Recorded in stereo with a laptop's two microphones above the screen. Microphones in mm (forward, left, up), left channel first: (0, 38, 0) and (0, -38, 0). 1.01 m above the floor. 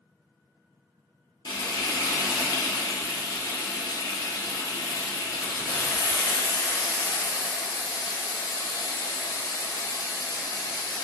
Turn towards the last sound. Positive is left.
turn(degrees=65)  # may be behind; listen again after turning